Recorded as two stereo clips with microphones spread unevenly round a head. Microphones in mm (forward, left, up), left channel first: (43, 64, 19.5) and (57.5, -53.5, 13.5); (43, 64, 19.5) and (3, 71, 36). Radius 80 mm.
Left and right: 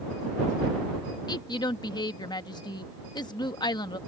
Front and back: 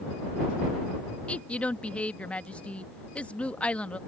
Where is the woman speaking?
45° left.